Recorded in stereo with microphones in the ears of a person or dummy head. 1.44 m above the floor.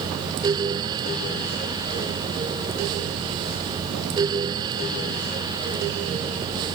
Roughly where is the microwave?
I don't hear a microwave.